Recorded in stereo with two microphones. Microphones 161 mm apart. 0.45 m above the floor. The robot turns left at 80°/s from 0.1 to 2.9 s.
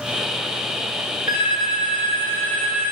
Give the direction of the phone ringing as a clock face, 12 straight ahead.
8 o'clock.